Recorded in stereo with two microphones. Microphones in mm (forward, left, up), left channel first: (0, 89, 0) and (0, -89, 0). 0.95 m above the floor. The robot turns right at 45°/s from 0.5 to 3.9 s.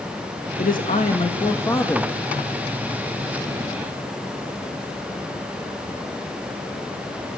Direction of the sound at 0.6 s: 110° left.